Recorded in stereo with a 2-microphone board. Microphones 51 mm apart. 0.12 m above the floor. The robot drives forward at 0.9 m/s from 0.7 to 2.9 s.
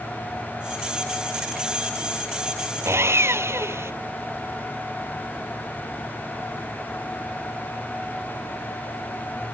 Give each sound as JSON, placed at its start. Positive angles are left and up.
{"t": 2.9, "sound": "sawing", "side_deg": -60}